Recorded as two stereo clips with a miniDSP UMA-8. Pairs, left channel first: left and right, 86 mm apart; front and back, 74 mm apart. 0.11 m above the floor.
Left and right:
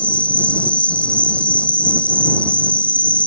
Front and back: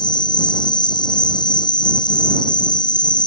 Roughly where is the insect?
Ahead.